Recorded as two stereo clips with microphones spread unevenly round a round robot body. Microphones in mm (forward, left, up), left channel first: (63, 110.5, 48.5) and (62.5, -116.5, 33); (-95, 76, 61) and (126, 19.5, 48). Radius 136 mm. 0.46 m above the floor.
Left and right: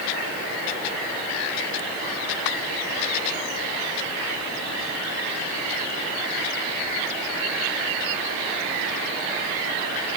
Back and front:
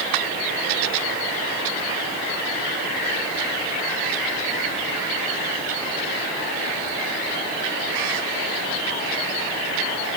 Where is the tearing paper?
No tearing paper in this recording.